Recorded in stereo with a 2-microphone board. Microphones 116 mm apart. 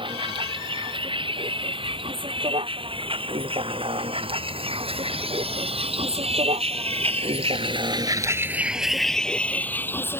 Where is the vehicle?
45° right (ahead or behind); by 10.2 s 20° left (ahead or behind).